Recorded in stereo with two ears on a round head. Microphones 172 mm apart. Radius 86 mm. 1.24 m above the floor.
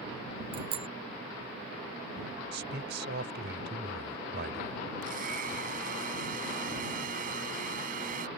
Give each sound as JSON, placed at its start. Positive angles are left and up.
{"t": 0.5, "sound": "a bicycle bell", "side_deg": -30}
{"t": 2.5, "sound": "a man speaking", "side_deg": -60}
{"t": 5.0, "sound": "a blender", "side_deg": -45}